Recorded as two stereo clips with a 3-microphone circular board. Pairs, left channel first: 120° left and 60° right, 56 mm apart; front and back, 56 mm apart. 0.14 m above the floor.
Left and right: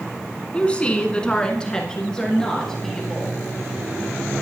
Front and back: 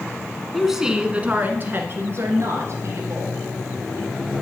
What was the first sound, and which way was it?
A woman speaking, 95° left.